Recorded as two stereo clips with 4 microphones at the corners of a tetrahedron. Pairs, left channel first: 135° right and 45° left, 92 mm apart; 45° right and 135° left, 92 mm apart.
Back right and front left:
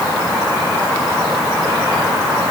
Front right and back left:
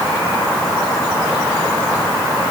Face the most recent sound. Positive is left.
No sound to turn to.